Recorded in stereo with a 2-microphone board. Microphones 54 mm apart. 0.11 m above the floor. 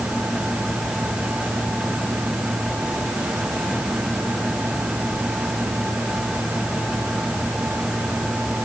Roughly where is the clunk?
I don't hear a clunk.